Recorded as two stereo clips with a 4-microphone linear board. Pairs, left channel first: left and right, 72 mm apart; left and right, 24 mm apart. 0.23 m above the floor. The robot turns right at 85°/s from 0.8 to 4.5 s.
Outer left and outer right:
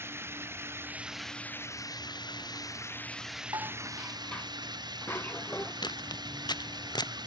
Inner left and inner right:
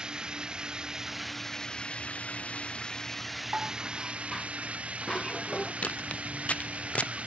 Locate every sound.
0.0 s running water: 35° right; by 7.3 s 80° right
3.5 s dishes clattering: 55° right; by 5.7 s 25° left
5.8 s footsteps: 85° left; by 7.1 s 80° left